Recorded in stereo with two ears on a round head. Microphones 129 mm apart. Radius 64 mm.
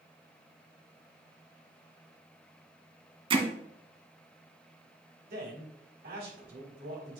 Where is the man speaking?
75° right (ahead or behind), 4.5 m.